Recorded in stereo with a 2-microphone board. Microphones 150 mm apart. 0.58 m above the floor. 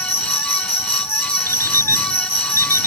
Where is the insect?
80° left.